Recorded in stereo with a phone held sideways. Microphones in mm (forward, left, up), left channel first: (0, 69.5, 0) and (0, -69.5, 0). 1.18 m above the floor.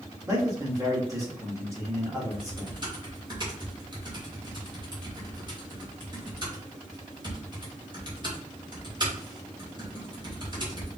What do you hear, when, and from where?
0.3 s a man speaking: 20° right (ahead or behind), 2.0 m
2.3 s typing on a keyboard: 35° right (ahead or behind), 2 m